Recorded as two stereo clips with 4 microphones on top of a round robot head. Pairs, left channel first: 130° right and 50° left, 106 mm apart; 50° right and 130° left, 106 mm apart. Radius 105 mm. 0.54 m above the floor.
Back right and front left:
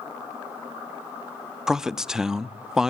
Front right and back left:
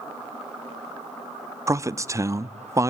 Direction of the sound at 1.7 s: 130° left.